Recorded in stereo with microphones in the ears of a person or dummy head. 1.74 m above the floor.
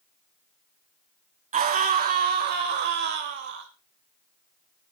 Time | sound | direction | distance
1.5 | a scream | 40° right (ahead or behind) | 1.7 m